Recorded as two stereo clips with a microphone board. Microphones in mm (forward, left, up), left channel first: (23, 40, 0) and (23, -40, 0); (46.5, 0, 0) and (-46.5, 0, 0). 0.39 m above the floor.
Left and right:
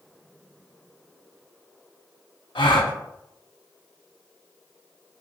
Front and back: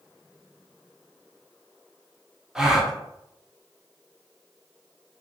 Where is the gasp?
95° left, 0.6 m.